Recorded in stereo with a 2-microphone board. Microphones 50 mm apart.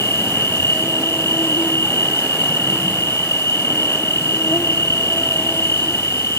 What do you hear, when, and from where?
0.0 s an insect: 75° left (ahead or behind), 2.0 m